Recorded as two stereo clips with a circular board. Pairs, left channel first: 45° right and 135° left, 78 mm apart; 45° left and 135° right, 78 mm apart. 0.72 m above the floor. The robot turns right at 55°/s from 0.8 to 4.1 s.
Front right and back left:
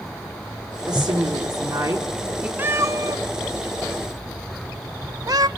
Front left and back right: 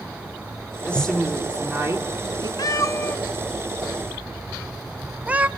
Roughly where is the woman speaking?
Behind left.